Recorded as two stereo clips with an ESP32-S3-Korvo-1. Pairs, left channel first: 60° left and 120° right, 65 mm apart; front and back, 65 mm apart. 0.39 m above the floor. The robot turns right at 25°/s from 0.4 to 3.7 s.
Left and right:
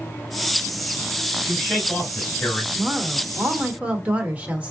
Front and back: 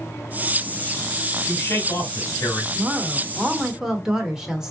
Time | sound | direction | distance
1.4 | a man speaking | 30° right | 1.7 m
2.8 | a woman speaking | 140° right | 0.9 m